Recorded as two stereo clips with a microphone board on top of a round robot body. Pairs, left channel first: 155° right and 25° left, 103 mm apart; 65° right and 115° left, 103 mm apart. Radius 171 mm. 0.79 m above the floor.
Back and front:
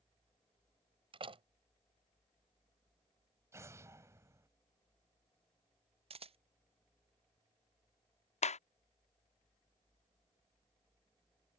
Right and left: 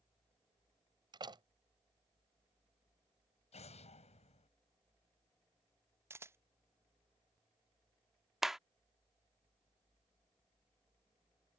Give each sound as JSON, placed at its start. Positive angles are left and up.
{"t": 1.1, "sound": "a door slam", "azimuth_deg": 65}
{"t": 3.5, "sound": "an explosion", "azimuth_deg": -45}
{"t": 6.1, "sound": "a camera shutter", "azimuth_deg": 45}
{"t": 8.4, "sound": "a clap", "azimuth_deg": -160}